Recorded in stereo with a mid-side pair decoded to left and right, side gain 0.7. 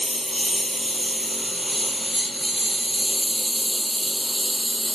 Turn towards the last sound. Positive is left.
turn(degrees=-10)